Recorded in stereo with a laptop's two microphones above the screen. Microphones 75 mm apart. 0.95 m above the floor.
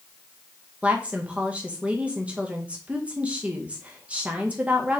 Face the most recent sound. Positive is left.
turn(degrees=-15)  # may be behind; listen again after turning